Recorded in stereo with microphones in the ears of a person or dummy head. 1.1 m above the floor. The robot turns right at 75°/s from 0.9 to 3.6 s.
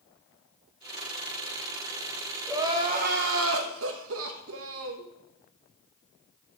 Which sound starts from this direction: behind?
Crying, at 2.5 s.